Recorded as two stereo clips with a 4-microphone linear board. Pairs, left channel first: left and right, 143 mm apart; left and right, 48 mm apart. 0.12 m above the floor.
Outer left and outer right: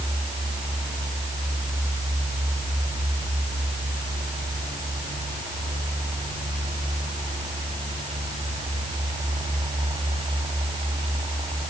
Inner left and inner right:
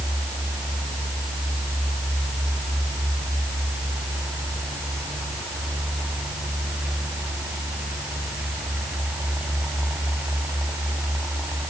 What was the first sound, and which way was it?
Only background noise.